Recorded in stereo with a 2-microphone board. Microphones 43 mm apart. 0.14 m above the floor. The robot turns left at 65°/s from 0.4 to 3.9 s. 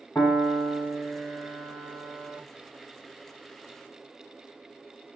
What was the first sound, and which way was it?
A piano, 115° left.